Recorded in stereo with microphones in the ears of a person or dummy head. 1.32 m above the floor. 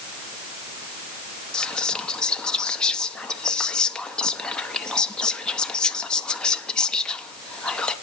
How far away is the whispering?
About 0.7 m.